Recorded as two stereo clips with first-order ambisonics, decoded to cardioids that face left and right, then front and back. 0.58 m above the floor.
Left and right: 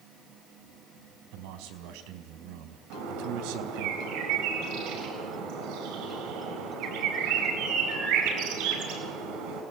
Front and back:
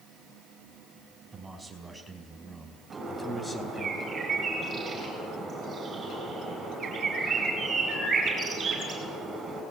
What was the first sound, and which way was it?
A man speaking, 100° right.